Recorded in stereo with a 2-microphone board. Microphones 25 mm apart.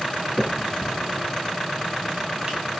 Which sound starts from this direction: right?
A finger snap, at 0.4 s.